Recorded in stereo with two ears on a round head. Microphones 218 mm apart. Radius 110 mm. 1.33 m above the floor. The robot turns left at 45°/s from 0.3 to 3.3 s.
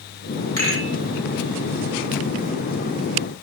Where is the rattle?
15° left (ahead or behind), 1.9 m; by 0.9 s 30° left (ahead or behind), 1.9 m.